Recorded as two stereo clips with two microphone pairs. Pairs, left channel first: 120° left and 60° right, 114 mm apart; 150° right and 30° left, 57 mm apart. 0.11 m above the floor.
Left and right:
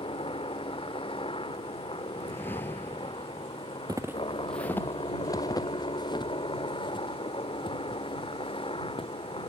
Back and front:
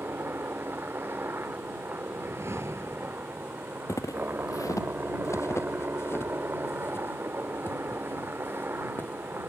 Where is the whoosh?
50° left.